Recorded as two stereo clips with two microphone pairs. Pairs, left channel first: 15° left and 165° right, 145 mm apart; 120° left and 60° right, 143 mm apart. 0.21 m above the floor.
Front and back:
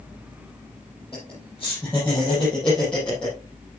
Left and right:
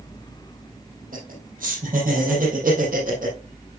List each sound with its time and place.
1.1 s laughter: 60° right, 6 m; by 3.4 s 70° right, 7.5 m